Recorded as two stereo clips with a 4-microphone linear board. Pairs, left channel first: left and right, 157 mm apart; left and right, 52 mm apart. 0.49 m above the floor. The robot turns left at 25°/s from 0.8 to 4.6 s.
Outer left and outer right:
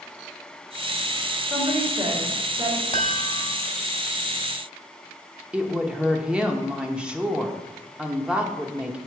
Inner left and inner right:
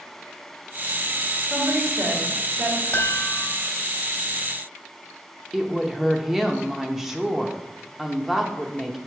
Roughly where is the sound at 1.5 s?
Ahead.